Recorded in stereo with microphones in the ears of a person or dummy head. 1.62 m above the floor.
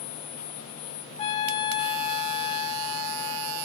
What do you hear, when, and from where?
1.2 s a trumpet: 35° left (ahead or behind), 3.5 m